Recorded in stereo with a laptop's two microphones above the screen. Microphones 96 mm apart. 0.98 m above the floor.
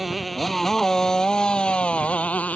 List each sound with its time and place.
0.0 s a motorcycle: centre (ahead or behind); by 2.6 s 15° left (ahead or behind)